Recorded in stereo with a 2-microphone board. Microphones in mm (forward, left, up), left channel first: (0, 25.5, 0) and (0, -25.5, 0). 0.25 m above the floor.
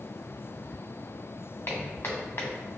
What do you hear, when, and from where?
1.7 s footsteps: 50° left (ahead or behind), 1.9 m